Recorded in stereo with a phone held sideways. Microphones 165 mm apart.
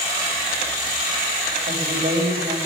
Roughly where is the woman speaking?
Right.